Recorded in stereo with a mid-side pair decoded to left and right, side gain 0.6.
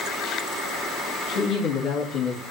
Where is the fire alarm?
No fire alarm in this recording.